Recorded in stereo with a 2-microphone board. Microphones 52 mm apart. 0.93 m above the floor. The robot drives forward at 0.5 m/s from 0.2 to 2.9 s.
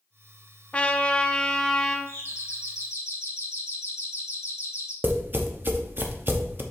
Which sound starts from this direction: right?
Tapping, at 5.0 s.